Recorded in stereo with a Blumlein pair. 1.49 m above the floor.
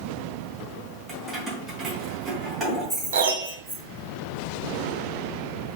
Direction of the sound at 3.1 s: 60° right.